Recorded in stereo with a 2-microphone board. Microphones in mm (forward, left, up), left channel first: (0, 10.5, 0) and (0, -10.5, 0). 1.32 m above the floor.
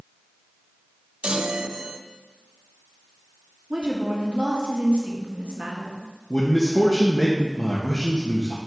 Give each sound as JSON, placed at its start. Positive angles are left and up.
{"t": 1.2, "sound": "a chime", "side_deg": -65, "distance_m": 0.6}
{"t": 3.7, "sound": "a woman speaking", "side_deg": -65, "distance_m": 1.5}
{"t": 6.3, "sound": "a man speaking", "side_deg": 55, "distance_m": 1.0}